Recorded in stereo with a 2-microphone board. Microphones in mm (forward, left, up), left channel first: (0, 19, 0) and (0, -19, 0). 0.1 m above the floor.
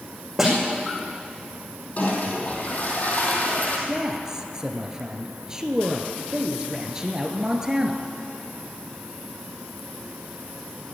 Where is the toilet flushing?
40° left (ahead or behind), 3 m.